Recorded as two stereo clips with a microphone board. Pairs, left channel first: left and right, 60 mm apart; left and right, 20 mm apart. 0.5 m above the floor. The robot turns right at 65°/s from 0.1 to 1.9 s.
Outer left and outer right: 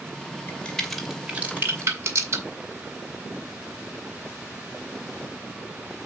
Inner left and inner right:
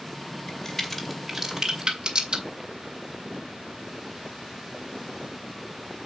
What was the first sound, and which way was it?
A crack, 25° left (ahead or behind).